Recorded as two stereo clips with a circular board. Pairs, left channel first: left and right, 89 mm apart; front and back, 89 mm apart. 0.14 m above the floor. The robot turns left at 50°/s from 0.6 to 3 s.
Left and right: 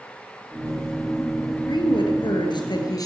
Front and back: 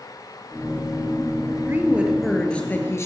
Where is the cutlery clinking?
I don't hear cutlery clinking.